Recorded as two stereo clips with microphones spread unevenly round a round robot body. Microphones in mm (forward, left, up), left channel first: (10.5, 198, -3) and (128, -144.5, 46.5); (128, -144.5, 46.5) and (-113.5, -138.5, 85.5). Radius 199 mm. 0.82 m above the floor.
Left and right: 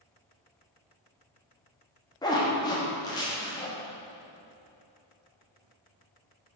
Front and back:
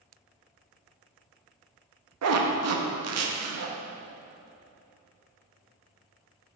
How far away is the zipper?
About 1.0 m.